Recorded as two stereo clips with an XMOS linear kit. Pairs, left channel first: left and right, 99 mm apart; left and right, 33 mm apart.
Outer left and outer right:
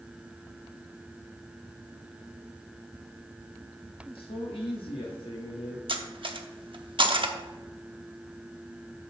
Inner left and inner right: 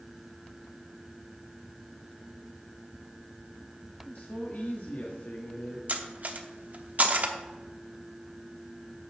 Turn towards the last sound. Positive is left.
turn(degrees=-55)  # may be behind; listen again after turning